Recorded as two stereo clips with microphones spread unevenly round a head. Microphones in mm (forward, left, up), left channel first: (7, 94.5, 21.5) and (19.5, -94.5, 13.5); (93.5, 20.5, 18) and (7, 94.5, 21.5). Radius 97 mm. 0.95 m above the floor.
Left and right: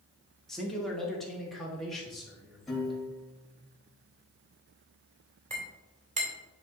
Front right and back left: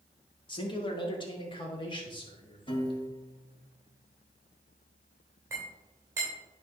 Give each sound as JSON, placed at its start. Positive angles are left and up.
{"t": 0.5, "sound": "a man speaking", "azimuth_deg": 5, "distance_m": 1.7}
{"t": 2.7, "sound": "a piano", "azimuth_deg": 5, "distance_m": 3.0}
{"t": 5.5, "sound": "a clink", "azimuth_deg": -145, "distance_m": 2.5}